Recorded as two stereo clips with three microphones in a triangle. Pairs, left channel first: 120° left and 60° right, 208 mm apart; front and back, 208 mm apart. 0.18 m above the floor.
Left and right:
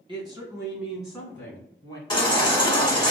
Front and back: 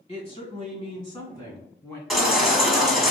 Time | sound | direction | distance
0.1 | a woman speaking | 20° right | 1.5 m
2.1 | a baby crying | 90° left | 1.1 m